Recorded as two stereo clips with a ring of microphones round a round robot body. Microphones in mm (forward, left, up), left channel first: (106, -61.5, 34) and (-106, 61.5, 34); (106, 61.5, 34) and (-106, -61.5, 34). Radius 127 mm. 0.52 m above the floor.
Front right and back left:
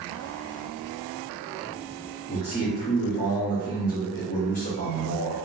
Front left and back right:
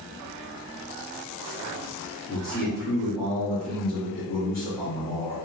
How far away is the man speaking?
About 1.5 m.